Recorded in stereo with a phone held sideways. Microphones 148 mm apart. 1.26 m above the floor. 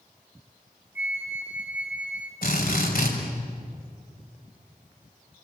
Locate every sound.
0.9 s a flute: 10° right (ahead or behind), 4 m
2.4 s a drill: 75° left (ahead or behind), 6 m